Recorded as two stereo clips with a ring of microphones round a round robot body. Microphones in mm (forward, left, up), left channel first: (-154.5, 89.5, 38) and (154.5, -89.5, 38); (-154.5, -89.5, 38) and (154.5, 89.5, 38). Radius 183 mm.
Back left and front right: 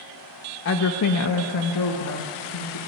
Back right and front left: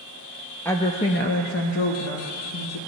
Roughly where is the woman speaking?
Behind left.